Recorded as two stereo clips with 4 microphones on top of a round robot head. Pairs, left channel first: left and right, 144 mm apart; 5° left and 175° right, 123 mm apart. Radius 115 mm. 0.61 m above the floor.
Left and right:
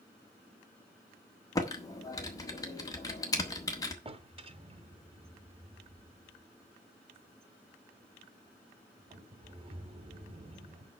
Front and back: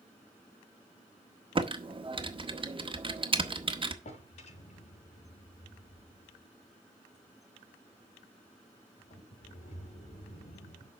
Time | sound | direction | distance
1.6 | typing on a keyboard | 155° left | 1.5 m
4.0 | a drawer | 35° right | 1.7 m